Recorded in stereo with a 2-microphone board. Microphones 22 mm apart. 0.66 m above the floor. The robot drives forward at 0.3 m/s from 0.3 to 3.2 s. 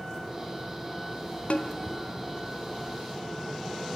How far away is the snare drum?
About 1.0 m.